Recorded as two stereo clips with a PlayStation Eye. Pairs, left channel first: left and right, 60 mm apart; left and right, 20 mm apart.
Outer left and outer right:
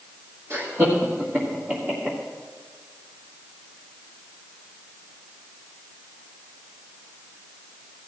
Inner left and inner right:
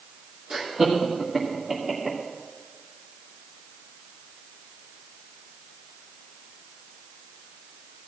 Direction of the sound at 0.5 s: 50° right (ahead or behind).